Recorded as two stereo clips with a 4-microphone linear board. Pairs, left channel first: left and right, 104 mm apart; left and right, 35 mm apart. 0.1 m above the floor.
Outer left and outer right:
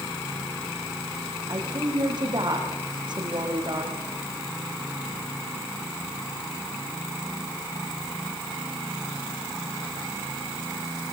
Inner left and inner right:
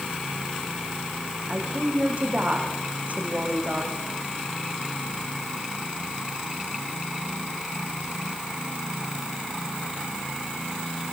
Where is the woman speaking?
45° right (ahead or behind), 6 m.